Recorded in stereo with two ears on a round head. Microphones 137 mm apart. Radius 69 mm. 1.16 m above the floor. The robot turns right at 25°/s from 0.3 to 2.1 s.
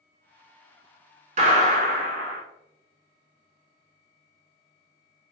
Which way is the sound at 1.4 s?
50° right (ahead or behind).